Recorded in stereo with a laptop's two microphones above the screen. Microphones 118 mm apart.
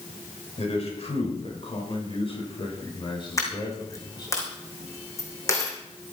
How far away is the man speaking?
About 5 m.